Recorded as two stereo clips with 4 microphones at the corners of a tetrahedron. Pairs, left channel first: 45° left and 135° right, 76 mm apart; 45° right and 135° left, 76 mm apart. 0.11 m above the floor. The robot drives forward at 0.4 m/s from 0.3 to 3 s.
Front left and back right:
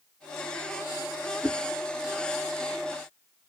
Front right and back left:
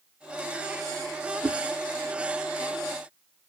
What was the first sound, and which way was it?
A whoosh, 110° left.